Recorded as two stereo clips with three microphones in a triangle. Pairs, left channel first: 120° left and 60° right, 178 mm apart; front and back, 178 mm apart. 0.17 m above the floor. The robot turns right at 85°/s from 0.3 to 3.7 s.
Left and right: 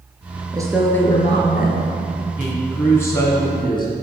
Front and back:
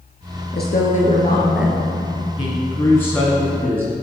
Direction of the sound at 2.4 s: 10° left.